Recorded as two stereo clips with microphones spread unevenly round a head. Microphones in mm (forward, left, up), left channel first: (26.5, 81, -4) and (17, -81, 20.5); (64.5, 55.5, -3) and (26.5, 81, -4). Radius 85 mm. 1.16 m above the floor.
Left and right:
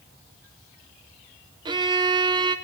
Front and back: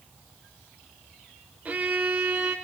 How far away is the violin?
About 0.7 m.